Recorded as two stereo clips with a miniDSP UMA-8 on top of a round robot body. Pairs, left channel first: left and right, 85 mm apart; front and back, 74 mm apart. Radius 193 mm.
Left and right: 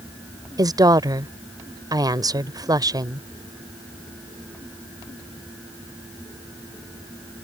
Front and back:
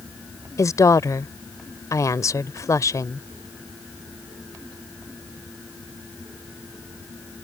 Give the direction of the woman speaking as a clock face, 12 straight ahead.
2 o'clock.